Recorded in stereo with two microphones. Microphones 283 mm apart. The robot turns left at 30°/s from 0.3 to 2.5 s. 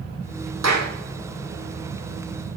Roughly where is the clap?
Right.